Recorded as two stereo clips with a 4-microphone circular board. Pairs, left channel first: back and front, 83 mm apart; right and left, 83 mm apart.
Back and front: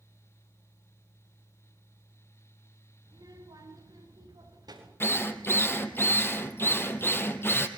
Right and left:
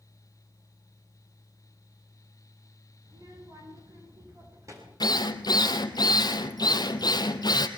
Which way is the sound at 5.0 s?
120° right.